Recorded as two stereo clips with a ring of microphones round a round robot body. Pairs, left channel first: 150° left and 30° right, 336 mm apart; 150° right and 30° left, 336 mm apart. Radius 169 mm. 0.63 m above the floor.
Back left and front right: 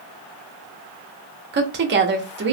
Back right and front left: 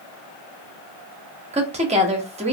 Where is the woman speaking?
20° right, 0.7 m.